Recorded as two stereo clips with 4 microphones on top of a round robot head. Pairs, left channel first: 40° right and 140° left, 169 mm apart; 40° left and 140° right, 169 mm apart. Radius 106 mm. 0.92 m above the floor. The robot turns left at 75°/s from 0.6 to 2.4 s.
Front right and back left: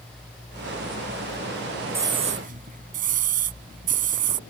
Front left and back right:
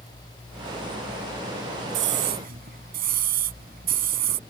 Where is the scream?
140° right; by 4.4 s straight behind.